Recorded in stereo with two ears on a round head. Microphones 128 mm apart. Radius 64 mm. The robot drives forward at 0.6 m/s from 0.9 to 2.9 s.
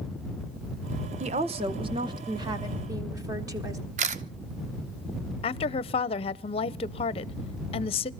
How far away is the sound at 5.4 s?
About 0.5 m.